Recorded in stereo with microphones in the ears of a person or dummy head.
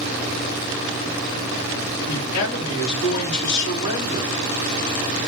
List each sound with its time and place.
2.1 s a man speaking: 55° left (ahead or behind), 3.5 m